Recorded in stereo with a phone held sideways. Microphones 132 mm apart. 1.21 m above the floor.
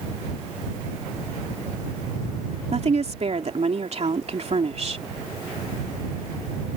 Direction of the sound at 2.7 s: 55° right (ahead or behind).